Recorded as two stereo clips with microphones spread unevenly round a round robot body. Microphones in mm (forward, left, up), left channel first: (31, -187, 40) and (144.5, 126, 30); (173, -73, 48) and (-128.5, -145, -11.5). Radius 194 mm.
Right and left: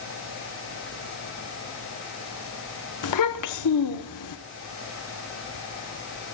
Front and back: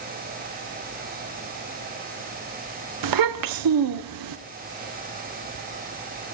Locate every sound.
3.0 s a child speaking: 155° right, 1.0 m